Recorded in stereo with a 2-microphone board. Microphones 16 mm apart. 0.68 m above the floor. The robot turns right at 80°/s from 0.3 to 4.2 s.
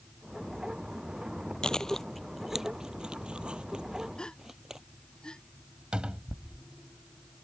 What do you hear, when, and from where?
1.6 s chewing: 55° left (ahead or behind); by 4.8 s 30° right (ahead or behind)
4.2 s a gasp: 50° left (ahead or behind); by 5.4 s 55° left (ahead or behind)
5.9 s a cupboard door: 80° right